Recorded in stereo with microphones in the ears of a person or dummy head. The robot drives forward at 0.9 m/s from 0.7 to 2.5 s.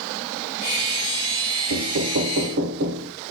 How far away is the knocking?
About 1.1 m.